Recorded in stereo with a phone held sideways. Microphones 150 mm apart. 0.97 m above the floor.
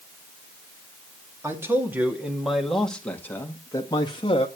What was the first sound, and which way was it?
A man speaking, 20° right (ahead or behind).